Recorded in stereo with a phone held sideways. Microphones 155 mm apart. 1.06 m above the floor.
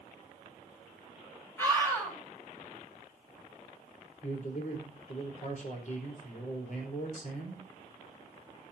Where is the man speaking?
55° left (ahead or behind), 4.5 m.